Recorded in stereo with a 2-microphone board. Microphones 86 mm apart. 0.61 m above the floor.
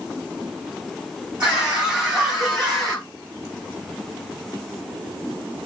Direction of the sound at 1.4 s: 10° right (ahead or behind).